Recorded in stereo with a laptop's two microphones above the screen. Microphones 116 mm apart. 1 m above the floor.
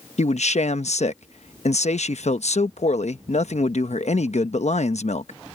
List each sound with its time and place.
0.2 s a man speaking: 70° left (ahead or behind)